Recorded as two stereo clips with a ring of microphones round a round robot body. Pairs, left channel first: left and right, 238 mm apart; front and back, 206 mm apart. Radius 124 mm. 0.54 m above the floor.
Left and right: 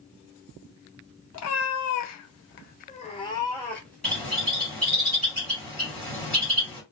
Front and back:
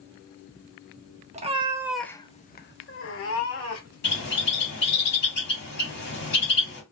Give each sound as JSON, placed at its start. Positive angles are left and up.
{"t": 1.3, "sound": "a cat meowing", "azimuth_deg": 120, "distance_m": 0.7}
{"t": 4.0, "sound": "a bird", "azimuth_deg": 5, "distance_m": 1.7}